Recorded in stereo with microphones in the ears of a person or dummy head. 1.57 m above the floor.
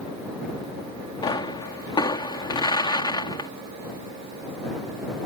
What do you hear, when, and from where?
1.2 s a pop: 25° left (ahead or behind)